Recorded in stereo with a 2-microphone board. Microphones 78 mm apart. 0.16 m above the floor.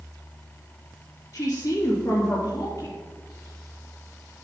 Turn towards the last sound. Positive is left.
turn(degrees=40)  # may be behind; listen again after turning